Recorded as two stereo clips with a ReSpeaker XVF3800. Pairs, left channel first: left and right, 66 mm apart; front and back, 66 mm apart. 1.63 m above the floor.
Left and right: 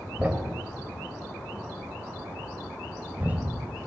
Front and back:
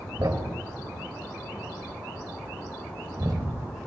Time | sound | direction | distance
0.2 | a thud | 155° right | 3.5 m